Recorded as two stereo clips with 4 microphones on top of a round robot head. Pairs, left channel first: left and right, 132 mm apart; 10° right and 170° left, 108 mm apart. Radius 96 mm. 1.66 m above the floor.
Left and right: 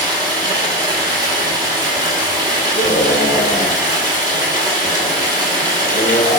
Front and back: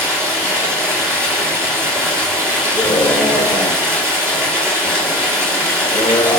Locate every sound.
0.0 s running water: 80° right, 1.2 m
2.7 s a scream: 35° left, 1.0 m